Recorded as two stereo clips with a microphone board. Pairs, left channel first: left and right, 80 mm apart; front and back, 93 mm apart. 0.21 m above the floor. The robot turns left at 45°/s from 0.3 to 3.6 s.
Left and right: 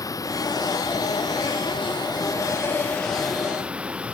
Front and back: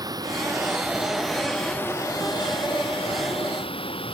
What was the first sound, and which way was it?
Running water, 135° left.